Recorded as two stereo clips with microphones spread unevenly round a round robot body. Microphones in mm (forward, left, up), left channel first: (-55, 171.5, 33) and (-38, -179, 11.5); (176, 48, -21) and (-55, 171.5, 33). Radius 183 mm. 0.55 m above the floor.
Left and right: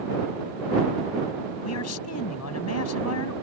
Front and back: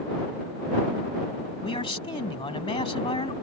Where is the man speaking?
40° left.